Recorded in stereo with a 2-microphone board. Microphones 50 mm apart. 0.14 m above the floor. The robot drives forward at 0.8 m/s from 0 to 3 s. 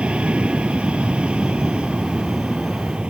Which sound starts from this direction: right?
An aircraft, at 0.0 s.